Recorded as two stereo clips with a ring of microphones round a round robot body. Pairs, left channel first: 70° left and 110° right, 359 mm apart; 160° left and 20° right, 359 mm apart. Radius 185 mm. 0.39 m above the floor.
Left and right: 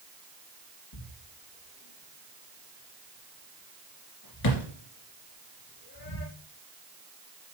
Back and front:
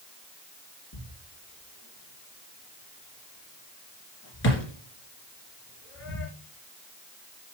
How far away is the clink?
No clink in this recording.